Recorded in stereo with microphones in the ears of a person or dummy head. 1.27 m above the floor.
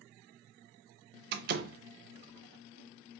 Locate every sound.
1.3 s a door slam: 50° right (ahead or behind), 0.6 m